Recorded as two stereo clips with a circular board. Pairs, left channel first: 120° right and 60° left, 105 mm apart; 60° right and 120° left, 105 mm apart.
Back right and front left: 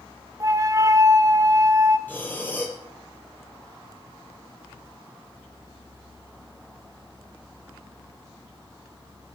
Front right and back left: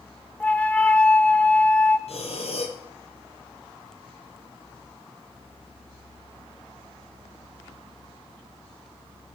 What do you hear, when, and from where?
0.4 s a flute: 15° left, 0.8 m
2.1 s breathing: 45° right, 2.5 m